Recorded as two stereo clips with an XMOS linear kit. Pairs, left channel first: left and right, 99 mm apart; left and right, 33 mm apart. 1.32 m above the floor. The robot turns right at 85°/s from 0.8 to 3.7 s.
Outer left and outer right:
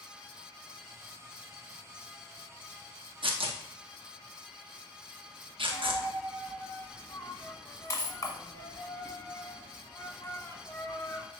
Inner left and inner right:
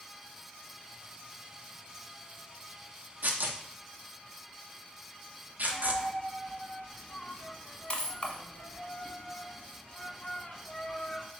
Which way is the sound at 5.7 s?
30° left (ahead or behind).